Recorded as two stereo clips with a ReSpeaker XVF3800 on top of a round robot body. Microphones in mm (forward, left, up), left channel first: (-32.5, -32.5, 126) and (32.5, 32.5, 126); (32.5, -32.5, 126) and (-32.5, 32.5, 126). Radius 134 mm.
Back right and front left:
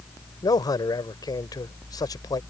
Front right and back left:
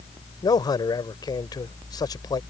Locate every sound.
0.4 s a man speaking: 90° right